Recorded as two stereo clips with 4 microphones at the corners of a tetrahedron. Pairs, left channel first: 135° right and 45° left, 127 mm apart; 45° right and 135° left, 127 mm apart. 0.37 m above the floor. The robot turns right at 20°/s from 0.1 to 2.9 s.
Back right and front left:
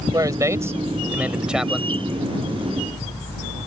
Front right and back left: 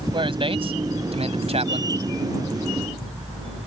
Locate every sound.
0.1 s a man speaking: 100° left; by 1.9 s 135° left